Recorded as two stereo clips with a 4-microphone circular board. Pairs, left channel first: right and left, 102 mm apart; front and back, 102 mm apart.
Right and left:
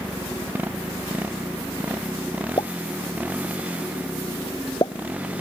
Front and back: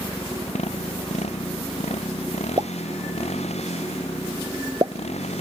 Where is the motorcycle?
15° left; by 5.4 s 10° left.